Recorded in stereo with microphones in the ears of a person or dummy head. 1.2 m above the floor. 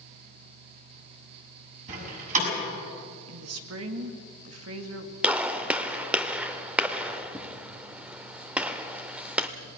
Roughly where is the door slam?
Right.